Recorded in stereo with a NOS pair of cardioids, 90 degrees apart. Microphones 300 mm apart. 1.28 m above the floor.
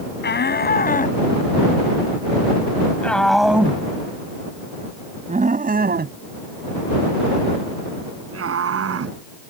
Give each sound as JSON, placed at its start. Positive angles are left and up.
{"t": 0.2, "sound": "a shout", "azimuth_deg": 35}